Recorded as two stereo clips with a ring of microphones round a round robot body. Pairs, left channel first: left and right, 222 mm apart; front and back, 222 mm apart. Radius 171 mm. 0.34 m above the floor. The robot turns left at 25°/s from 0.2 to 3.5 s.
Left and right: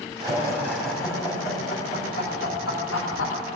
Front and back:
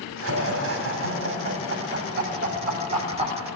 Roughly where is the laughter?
Behind.